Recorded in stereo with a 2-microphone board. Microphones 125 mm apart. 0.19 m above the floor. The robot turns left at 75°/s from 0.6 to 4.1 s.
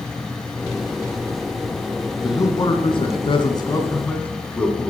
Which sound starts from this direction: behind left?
A man speaking, at 2.2 s.